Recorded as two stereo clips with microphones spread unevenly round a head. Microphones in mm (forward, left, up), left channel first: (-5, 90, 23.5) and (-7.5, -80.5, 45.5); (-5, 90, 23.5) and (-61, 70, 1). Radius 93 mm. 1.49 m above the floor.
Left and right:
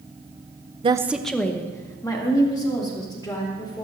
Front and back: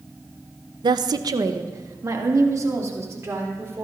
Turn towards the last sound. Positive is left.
turn(degrees=155)